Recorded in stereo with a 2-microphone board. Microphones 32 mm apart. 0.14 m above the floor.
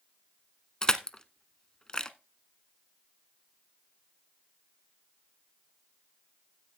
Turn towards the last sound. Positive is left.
turn(degrees=25)  # may be behind; listen again after turning